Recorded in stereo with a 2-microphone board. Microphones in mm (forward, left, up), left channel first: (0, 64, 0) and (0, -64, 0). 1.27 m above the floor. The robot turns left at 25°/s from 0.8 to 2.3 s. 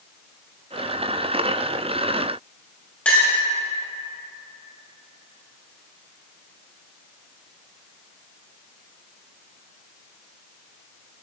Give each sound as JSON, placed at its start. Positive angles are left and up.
{"t": 3.0, "sound": "a clink", "side_deg": 10, "distance_m": 5.0}